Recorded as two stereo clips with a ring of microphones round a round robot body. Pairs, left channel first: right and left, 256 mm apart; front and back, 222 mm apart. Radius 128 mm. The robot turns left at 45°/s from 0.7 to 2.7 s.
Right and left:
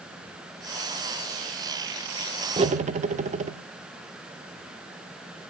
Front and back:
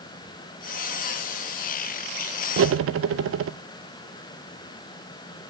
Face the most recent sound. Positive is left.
turn(degrees=155)